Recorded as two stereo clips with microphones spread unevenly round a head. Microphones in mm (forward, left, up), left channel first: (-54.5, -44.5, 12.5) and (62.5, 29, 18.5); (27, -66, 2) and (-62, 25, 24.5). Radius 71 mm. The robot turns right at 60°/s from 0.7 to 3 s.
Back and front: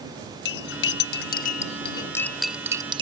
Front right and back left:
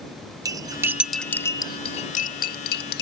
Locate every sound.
0.5 s cutlery clinking: 160° right; by 3.0 s 25° right